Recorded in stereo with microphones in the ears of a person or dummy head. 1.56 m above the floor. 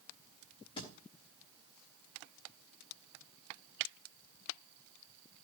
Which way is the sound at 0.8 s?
25° left (ahead or behind).